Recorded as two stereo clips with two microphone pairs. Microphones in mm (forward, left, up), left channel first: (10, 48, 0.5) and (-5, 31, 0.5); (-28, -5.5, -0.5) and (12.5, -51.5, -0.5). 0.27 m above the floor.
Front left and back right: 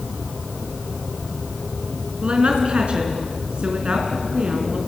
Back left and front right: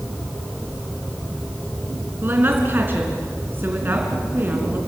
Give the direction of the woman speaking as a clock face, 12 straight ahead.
3 o'clock.